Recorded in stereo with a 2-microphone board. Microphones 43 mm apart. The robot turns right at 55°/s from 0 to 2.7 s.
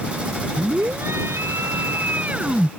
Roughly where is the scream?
Behind right.